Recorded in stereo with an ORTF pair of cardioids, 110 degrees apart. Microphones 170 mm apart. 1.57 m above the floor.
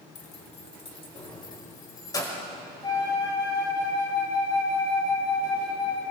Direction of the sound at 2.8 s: 25° left.